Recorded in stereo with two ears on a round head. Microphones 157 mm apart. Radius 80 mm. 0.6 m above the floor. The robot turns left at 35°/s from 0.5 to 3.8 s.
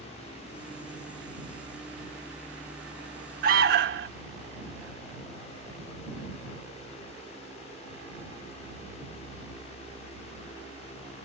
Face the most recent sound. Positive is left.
turn(degrees=-60)  # may be behind; listen again after turning